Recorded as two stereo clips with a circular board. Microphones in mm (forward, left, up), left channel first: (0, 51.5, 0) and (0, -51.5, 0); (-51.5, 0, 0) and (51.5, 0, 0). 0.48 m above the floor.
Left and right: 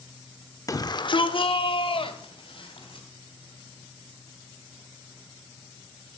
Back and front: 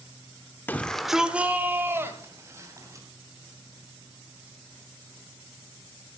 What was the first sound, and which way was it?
A shout, 120° left.